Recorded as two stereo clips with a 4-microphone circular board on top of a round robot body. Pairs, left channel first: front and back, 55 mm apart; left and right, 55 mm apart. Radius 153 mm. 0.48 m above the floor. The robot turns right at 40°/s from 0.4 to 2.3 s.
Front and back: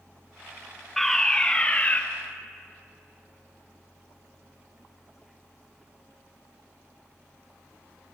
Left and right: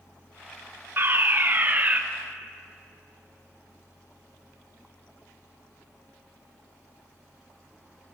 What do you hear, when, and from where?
1.0 s a fire alarm: 85° right, 2 m; by 2.0 s 40° right, 2 m